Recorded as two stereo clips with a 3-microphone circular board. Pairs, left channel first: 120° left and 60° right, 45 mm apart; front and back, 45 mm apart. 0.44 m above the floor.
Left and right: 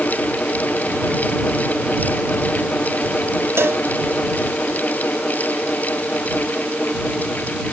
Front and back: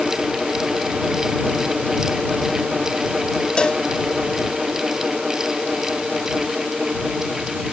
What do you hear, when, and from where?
3.6 s a cowbell: 70° right